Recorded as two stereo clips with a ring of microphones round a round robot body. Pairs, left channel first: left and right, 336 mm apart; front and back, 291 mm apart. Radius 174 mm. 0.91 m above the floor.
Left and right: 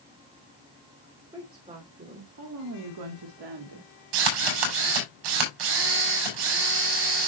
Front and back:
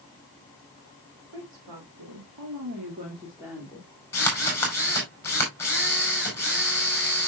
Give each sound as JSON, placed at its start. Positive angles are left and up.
{"t": 1.3, "sound": "a woman speaking", "azimuth_deg": -165, "distance_m": 3.0}
{"t": 4.1, "sound": "a drill", "azimuth_deg": -85, "distance_m": 4.5}